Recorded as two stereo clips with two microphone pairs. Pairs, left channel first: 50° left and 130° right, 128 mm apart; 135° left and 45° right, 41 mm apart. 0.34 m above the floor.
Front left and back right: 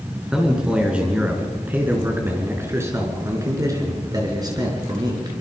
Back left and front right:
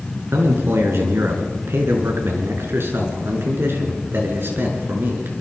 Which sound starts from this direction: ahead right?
A man speaking, at 0.3 s.